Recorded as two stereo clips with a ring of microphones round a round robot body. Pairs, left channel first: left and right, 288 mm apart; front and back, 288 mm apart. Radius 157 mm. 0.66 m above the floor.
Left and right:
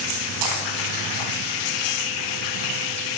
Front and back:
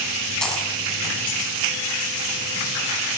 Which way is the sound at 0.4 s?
90° right.